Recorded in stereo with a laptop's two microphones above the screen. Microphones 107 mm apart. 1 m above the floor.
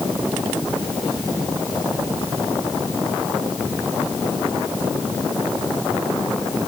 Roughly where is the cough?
I don't hear a cough.